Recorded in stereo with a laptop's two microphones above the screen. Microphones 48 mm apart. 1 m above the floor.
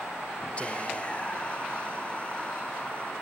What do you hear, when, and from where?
0.6 s whispering: 25° left (ahead or behind), 1.0 m